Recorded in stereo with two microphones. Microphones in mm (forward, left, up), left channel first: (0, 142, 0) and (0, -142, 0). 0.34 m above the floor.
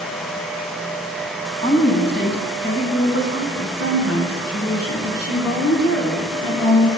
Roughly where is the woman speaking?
Left.